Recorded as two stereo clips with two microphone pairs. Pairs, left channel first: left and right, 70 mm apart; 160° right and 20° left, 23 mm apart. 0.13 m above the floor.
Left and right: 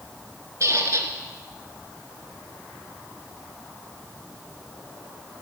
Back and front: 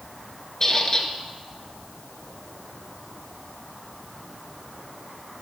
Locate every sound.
0.6 s a squeak: 105° right, 1.5 m